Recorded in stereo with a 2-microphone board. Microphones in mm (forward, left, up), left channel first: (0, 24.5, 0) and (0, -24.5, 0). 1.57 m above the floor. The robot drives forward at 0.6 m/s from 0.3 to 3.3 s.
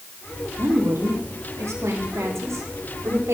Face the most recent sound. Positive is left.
turn(degrees=-70)  # may be behind; listen again after turning